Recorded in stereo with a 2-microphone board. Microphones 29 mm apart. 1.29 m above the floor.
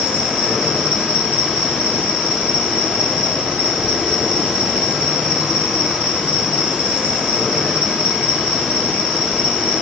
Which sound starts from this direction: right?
An insect, at 0.0 s.